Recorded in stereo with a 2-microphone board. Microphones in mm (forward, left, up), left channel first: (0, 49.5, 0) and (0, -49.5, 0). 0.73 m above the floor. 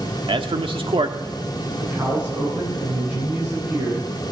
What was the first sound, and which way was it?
A man speaking, 65° right (ahead or behind).